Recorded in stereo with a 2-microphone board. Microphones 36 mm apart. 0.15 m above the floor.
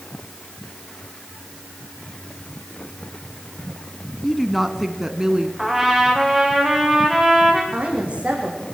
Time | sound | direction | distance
4.2 | a woman speaking | 10° left (ahead or behind) | 1.2 m
5.6 | a trumpet | 5° right (ahead or behind) | 5.5 m
7.7 | a woman speaking | 35° right (ahead or behind) | 7 m